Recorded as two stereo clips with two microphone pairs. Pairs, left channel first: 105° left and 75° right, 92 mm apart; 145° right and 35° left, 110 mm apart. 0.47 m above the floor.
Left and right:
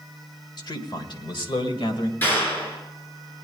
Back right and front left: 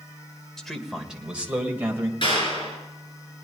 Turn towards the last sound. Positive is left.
turn(degrees=175)